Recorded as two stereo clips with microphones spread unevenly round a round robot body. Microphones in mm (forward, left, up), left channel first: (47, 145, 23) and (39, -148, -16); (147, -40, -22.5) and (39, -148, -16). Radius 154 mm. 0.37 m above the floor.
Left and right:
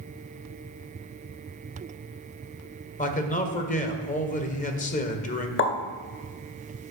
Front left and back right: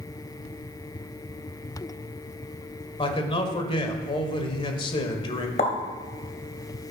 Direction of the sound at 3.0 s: 30° left.